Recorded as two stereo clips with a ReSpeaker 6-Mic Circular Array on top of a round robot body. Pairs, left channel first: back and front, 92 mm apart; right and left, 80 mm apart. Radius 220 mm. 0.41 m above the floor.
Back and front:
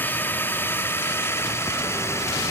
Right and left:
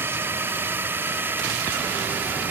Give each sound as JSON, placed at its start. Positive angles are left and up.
{"t": 0.0, "sound": "a drone", "azimuth_deg": 125}